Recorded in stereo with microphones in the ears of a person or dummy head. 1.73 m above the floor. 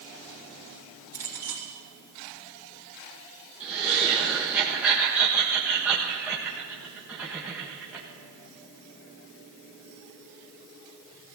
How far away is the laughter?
About 1.3 m.